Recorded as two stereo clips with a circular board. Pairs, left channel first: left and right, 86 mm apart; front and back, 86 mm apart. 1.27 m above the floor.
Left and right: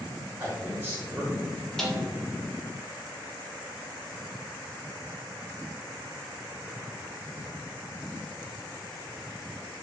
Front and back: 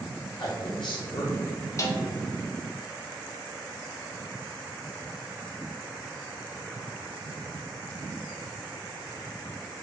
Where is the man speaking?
20° right, 1.2 m.